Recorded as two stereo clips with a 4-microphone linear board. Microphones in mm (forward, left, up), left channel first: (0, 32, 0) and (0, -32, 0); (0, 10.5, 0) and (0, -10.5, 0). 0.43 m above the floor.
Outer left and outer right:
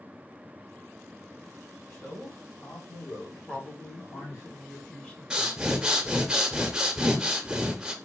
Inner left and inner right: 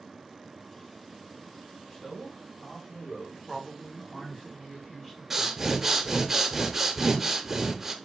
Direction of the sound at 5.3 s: 15° right (ahead or behind).